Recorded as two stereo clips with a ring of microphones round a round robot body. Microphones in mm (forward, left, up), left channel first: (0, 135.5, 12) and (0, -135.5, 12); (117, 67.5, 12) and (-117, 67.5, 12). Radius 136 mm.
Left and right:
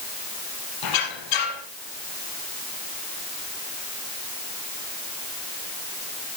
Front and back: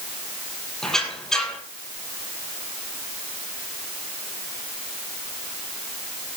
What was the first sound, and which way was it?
A squeak, 90° left.